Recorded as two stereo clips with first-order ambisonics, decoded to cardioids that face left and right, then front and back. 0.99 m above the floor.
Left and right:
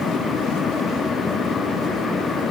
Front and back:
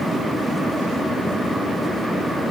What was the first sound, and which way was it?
Only background noise.